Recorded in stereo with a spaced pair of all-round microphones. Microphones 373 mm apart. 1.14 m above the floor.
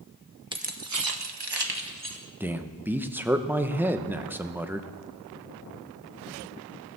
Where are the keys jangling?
10° right (ahead or behind), 1.0 m; by 2.2 s 65° right (ahead or behind), 1.9 m.